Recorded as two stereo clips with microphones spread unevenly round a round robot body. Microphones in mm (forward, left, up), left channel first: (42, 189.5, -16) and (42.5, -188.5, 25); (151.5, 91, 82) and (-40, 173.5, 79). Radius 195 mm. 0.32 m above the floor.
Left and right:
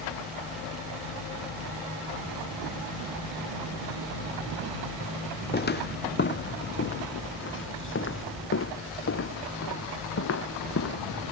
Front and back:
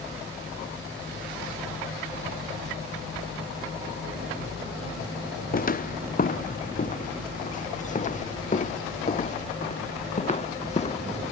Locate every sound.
5.5 s footsteps: 25° left; by 11.3 s 35° left